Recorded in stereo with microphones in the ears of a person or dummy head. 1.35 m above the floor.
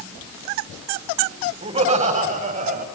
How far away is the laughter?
About 7 m.